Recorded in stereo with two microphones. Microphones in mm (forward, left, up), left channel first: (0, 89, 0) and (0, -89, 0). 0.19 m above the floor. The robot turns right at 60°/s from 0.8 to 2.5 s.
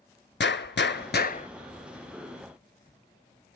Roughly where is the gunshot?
Left.